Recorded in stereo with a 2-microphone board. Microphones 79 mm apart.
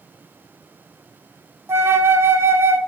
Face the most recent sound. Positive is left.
turn(degrees=-30)  # may be behind; listen again after turning